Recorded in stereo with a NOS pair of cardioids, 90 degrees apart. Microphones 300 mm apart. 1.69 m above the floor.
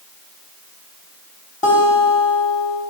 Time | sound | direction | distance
1.6 | a guitar | 25° left | 1.4 m